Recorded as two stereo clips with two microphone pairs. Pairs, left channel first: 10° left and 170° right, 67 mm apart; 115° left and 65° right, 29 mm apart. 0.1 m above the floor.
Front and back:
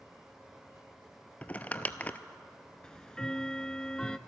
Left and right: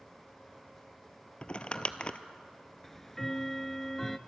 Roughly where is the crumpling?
Left.